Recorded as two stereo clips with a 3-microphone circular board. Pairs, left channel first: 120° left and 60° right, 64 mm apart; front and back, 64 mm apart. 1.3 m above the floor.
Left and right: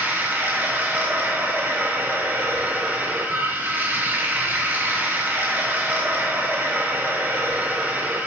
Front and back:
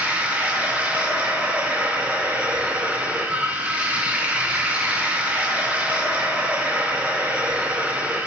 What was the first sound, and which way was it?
Running water, 115° right.